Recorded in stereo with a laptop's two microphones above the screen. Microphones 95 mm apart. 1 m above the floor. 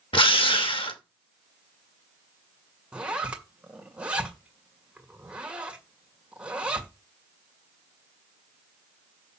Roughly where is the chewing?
No chewing in this recording.